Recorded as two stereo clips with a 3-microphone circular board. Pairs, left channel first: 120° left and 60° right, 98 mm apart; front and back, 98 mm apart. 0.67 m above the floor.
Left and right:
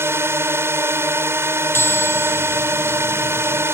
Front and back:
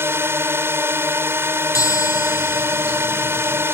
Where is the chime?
55° left.